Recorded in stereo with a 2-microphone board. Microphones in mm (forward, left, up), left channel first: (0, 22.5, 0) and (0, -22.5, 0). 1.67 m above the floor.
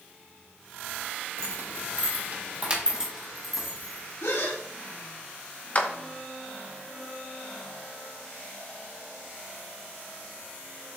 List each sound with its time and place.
1.4 s keys jangling: 65° right (ahead or behind), 1.5 m; by 4.1 s 10° left (ahead or behind), 2 m
4.2 s a gasp: 85° left, 1.6 m
5.8 s a clap: 35° left (ahead or behind), 0.9 m